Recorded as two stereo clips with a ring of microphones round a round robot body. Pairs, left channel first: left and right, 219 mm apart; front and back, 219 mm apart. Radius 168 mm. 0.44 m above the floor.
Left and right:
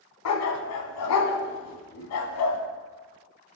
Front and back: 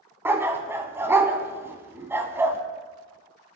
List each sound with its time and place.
0.2 s a dog barking: 100° left, 1.0 m